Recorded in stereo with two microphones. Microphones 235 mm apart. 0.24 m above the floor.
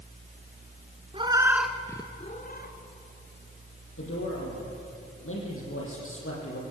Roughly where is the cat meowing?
Right.